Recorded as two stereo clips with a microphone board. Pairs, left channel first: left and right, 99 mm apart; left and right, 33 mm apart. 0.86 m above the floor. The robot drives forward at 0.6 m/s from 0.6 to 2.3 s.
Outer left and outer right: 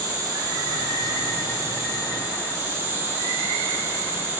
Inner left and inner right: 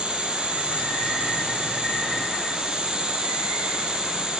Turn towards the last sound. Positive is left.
turn(degrees=-30)  # may be behind; listen again after turning